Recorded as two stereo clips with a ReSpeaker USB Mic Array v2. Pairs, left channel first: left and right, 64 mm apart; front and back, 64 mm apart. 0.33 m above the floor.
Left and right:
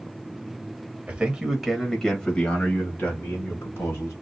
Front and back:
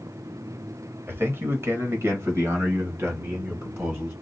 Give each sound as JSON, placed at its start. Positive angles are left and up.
{"t": 1.1, "sound": "a man speaking", "azimuth_deg": -150, "distance_m": 1.2}